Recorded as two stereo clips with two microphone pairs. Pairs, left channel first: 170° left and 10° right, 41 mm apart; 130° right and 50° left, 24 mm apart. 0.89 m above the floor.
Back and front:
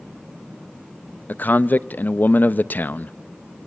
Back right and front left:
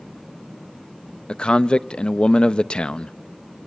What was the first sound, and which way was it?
A man speaking, 165° right.